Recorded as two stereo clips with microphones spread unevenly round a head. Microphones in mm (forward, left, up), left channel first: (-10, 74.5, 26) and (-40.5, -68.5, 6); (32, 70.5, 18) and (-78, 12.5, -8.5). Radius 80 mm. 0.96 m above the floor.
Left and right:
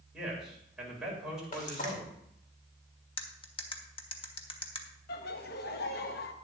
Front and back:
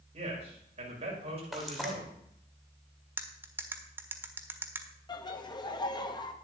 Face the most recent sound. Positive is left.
turn(degrees=85)